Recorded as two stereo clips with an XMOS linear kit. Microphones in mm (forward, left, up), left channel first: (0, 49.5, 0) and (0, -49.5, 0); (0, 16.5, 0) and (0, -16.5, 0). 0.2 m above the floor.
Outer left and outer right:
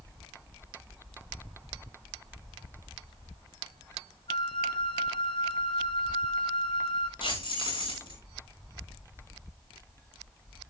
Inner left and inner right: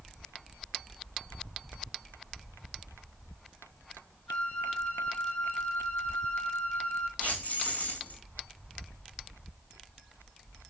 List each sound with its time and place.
4.3 s a flute: 60° left (ahead or behind), 2.0 m
7.2 s keys jangling: 55° left (ahead or behind), 9.5 m